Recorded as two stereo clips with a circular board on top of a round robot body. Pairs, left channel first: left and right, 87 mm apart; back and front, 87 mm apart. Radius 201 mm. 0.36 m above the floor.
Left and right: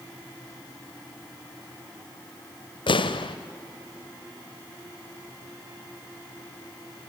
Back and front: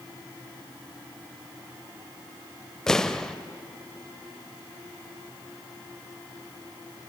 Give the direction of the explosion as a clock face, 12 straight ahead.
9 o'clock.